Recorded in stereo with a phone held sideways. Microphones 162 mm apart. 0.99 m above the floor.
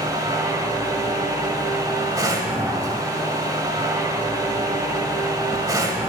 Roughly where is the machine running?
Right.